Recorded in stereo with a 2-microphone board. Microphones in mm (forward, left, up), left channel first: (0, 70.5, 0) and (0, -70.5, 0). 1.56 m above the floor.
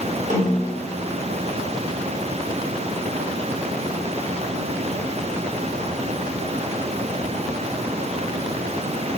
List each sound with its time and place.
0.3 s a snare drum: 55° right (ahead or behind), 3.5 m